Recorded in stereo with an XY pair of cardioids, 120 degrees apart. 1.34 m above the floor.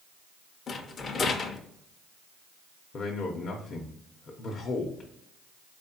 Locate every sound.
0.7 s a rattle: 40° left, 0.6 m
2.9 s a man speaking: 50° left, 0.7 m